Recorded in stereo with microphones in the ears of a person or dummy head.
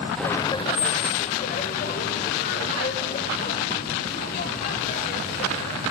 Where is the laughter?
Centre (ahead or behind), 0.6 m; by 5.8 s 50° left (ahead or behind), 6 m.